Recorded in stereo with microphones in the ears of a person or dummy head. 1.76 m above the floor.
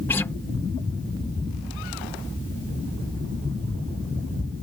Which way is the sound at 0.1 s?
15° left (ahead or behind).